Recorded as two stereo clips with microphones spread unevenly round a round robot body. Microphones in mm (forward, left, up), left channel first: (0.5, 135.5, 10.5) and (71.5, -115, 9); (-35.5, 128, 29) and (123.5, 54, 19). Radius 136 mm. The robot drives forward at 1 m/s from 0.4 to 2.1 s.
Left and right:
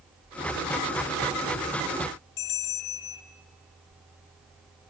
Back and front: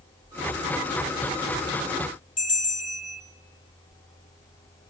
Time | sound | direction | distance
2.4 | a bell | 110° left | 1.0 m